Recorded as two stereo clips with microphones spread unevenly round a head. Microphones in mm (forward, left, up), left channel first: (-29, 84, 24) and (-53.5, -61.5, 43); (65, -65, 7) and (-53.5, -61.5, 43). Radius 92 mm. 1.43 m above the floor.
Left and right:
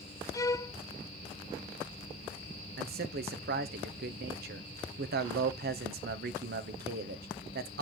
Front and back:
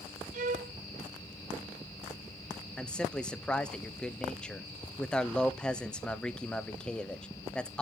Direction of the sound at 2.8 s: 80° right.